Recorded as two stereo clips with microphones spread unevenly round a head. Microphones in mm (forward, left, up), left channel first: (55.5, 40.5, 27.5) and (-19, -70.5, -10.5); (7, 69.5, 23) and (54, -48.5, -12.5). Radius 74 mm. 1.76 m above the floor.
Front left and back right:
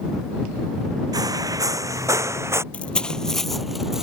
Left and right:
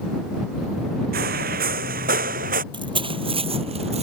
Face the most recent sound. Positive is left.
turn(degrees=-25)